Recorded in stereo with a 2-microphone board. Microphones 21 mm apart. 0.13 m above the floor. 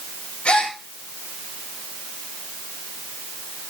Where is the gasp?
65° left (ahead or behind), 4 m.